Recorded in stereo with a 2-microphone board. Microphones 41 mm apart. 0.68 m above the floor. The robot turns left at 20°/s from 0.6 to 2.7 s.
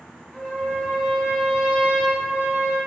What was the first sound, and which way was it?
A trumpet, straight ahead.